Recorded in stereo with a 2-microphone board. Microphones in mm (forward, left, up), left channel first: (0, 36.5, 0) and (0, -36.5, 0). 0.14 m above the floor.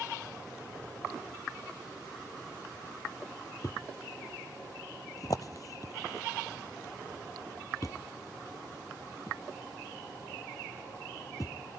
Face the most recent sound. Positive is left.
turn(degrees=55)  # may be behind; listen again after turning